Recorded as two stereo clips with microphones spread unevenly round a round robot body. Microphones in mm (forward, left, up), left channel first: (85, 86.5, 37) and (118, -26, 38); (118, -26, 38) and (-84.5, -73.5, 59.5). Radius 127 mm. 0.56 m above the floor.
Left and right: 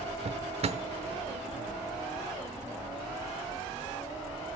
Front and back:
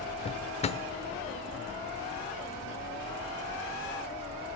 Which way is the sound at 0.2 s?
45° right.